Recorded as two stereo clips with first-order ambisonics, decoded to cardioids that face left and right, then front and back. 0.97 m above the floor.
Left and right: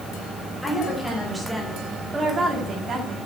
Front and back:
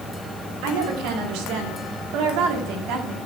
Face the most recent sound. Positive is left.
turn(degrees=-150)